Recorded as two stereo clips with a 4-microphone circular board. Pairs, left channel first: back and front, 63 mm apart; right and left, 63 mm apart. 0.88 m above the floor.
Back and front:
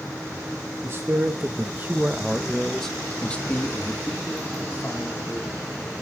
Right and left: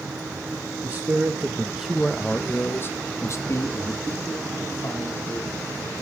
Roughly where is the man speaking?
Ahead left.